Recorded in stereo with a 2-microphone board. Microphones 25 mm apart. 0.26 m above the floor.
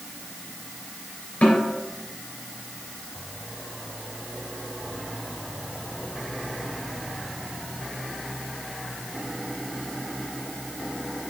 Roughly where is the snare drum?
Left.